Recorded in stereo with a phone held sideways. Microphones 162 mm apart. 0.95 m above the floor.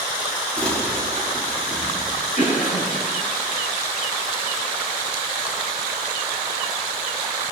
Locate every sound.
0.6 s crumpling: 5° left (ahead or behind), 2.5 m
2.4 s a cough: 55° left (ahead or behind), 5 m